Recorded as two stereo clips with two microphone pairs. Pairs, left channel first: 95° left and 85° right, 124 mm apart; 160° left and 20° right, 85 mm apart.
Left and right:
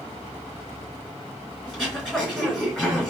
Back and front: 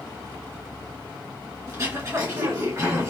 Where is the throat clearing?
5° left, 1.9 m.